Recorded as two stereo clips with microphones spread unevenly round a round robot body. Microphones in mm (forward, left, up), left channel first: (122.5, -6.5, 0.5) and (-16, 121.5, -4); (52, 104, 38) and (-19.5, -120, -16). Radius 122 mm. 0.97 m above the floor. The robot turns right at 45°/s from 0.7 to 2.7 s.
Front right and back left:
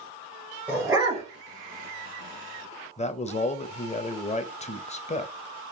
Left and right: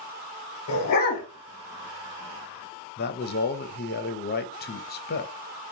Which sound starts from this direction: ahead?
A man speaking, at 3.0 s.